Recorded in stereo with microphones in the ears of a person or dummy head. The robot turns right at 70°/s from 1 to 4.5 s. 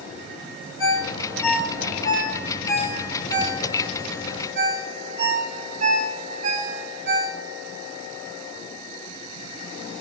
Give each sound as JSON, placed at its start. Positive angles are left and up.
{"t": 0.8, "sound": "a ringtone", "side_deg": -25, "distance_m": 5.0}